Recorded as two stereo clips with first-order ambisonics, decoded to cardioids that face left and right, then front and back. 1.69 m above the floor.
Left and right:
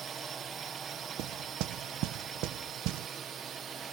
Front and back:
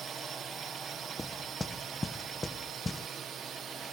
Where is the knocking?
80° right.